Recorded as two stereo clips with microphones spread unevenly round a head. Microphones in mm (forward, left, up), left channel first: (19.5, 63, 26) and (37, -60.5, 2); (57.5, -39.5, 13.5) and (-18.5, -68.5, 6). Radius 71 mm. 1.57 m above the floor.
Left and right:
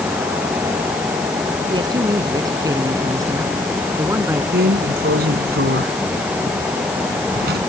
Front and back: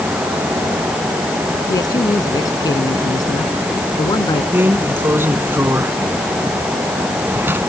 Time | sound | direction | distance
1.7 | a man speaking | 25° right | ?
4.5 | a drawer | 95° right | ?